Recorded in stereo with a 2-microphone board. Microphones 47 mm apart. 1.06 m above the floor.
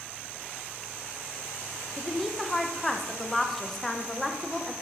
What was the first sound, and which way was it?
A woman speaking, 5° left (ahead or behind).